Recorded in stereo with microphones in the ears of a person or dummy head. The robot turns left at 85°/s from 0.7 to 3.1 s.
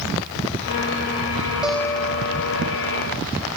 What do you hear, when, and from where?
1.6 s a guitar: 175° right; by 3.2 s 60° left